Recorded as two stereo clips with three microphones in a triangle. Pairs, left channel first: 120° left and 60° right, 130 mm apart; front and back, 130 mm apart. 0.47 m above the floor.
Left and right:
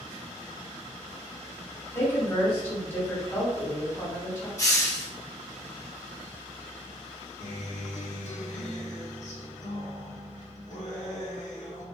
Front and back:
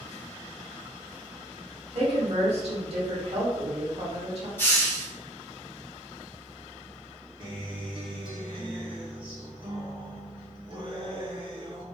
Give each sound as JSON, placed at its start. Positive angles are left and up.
{"t": 1.9, "sound": "a woman speaking", "azimuth_deg": -175, "distance_m": 1.3}
{"t": 4.6, "sound": "a hiss", "azimuth_deg": 65, "distance_m": 0.9}
{"t": 7.4, "sound": "a guitar", "azimuth_deg": 135, "distance_m": 0.8}